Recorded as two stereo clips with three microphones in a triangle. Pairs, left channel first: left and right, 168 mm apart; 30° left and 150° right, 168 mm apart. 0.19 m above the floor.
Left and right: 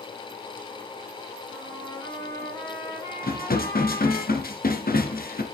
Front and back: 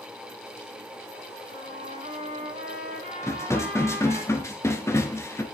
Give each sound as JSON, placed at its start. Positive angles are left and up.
{"t": 1.5, "sound": "a trumpet", "azimuth_deg": 160, "distance_m": 6.5}
{"t": 3.2, "sound": "dishes clattering", "azimuth_deg": 100, "distance_m": 2.0}